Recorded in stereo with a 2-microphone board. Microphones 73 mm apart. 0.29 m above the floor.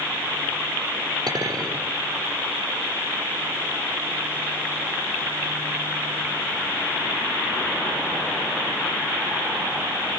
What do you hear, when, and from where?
1.3 s a clink: 65° right (ahead or behind), 5 m